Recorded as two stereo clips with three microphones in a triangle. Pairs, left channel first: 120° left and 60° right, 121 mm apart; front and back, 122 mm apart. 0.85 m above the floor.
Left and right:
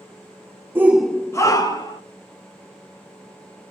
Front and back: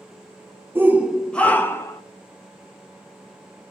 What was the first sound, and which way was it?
A shout, 120° right.